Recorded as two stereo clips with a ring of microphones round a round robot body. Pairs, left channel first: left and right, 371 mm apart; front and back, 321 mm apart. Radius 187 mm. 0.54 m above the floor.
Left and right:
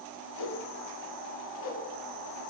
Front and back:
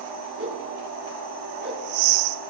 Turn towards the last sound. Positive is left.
turn(degrees=125)